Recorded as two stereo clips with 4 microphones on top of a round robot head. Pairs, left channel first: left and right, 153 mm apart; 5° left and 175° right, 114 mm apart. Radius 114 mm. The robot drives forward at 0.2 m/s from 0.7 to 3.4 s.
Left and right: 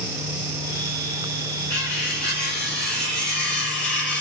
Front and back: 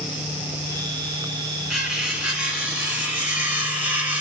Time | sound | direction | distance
1.7 | cutlery clinking | 95° left | 2 m